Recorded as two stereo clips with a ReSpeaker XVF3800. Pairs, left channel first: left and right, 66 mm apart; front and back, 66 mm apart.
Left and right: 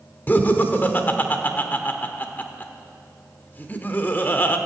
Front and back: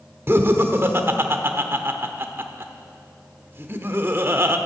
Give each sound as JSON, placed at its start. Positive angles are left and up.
{"t": 0.3, "sound": "laughter", "azimuth_deg": 140, "distance_m": 1.0}